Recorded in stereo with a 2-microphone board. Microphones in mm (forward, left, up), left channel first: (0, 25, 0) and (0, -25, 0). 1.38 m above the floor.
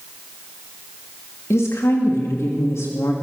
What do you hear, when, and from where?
1.5 s a woman speaking: 75° left (ahead or behind), 2.5 m